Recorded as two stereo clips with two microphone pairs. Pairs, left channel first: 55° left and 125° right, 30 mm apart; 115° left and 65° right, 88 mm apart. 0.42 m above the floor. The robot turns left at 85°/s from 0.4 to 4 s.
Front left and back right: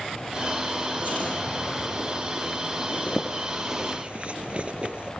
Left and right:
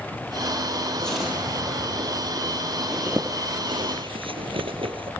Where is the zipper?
20° left, 4 m; by 5.1 s 75° right, 4 m.